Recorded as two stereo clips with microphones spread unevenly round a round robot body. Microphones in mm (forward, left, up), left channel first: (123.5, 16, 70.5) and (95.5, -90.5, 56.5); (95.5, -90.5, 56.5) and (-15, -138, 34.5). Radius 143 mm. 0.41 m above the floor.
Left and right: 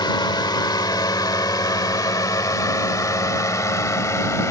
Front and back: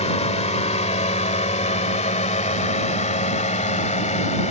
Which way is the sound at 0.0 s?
35° left.